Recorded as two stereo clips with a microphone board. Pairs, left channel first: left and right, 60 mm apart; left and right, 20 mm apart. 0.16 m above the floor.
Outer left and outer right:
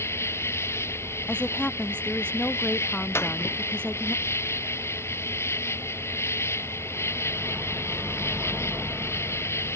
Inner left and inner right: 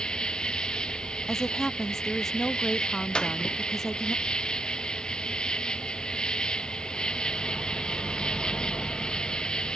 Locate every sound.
0.0 s an insect: 45° left (ahead or behind)
1.3 s a woman speaking: 15° left (ahead or behind)
3.1 s a clap: 40° left (ahead or behind)